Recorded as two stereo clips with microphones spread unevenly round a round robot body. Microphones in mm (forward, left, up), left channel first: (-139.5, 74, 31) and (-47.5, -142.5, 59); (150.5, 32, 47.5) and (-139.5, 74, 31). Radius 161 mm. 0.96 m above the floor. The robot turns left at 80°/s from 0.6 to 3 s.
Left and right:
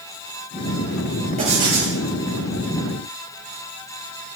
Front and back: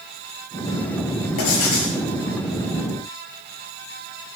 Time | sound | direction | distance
1.4 | writing | 5° left | 7 m